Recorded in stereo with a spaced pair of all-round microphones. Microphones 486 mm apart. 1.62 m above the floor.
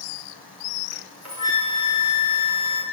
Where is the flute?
30° left (ahead or behind), 1.3 m.